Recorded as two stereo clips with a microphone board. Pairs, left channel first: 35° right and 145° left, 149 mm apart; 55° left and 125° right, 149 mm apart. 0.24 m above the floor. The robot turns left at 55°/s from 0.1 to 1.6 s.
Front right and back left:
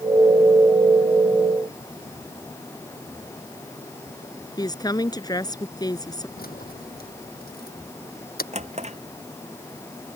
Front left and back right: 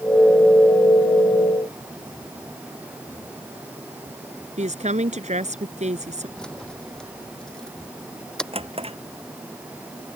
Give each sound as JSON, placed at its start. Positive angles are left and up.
{"t": 4.6, "sound": "a woman speaking", "azimuth_deg": -95}
{"t": 6.4, "sound": "keys jangling", "azimuth_deg": -30}
{"t": 8.5, "sound": "a drawer", "azimuth_deg": -175}